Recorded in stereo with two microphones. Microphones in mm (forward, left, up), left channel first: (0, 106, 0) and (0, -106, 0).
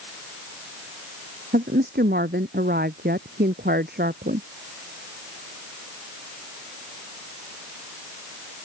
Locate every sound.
1.5 s a woman speaking: 50° right (ahead or behind)